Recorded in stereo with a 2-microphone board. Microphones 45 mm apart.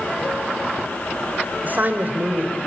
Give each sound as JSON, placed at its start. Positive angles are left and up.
{"t": 1.6, "sound": "a man speaking", "side_deg": -45, "distance_m": 2.5}